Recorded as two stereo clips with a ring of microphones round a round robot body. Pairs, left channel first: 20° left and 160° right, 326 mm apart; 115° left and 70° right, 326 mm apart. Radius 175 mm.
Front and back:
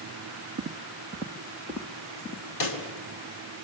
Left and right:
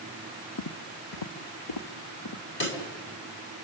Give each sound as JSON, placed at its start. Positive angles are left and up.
{"t": 0.6, "sound": "footsteps", "azimuth_deg": 145, "distance_m": 1.8}
{"t": 2.6, "sound": "a pop", "azimuth_deg": 55, "distance_m": 3.5}